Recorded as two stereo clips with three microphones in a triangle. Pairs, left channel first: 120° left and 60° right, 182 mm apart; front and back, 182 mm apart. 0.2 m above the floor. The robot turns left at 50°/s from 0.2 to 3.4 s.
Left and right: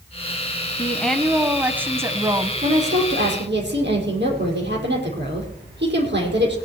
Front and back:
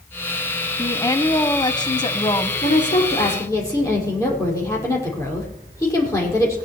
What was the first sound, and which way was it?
A woman speaking, 55° left.